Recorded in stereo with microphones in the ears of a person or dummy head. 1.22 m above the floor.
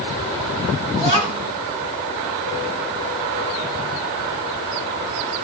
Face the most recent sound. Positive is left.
turn(degrees=-30)  # may be behind; listen again after turning